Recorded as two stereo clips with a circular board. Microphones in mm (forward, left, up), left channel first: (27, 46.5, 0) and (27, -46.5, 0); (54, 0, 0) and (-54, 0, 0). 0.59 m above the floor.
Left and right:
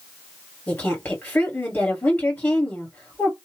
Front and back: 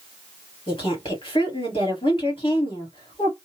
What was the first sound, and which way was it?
A woman speaking, 20° left.